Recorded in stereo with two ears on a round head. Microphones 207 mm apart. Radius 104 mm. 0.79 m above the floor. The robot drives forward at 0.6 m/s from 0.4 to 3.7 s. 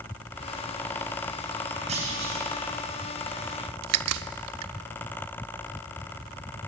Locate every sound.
1.9 s a clunk: 30° right (ahead or behind), 5.5 m
3.8 s a crack: 75° right (ahead or behind), 0.7 m